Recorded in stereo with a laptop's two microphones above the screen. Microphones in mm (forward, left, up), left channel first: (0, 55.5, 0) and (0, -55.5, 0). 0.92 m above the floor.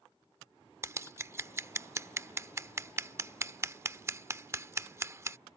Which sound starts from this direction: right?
Scissors, at 0.8 s.